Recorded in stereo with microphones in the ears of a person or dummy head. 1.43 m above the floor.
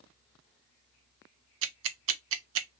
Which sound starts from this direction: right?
Ticking, at 1.6 s.